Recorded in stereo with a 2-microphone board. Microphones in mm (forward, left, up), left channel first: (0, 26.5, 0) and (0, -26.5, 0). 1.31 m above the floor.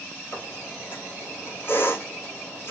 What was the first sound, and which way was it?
A squeak, 45° left (ahead or behind).